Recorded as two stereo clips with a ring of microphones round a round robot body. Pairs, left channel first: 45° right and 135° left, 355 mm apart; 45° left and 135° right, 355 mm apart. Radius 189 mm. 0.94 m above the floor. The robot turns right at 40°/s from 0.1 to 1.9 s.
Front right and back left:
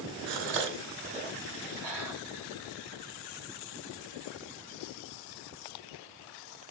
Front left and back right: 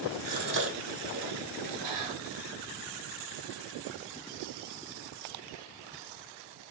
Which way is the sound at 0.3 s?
155° left.